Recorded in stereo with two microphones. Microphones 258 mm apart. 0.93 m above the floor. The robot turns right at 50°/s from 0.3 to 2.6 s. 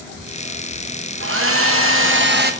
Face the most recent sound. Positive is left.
turn(degrees=-40)